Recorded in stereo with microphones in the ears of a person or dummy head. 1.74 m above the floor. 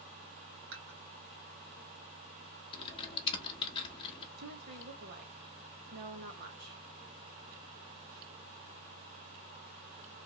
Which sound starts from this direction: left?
Typing on a keyboard, at 2.7 s.